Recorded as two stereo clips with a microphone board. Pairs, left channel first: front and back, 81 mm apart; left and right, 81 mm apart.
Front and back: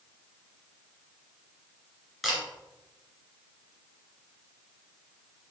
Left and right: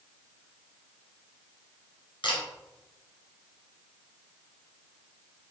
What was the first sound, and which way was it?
A camera shutter, 90° left.